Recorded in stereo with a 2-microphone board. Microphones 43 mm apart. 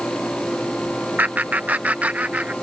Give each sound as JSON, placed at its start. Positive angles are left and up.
{"t": 1.2, "sound": "laughter", "side_deg": -40}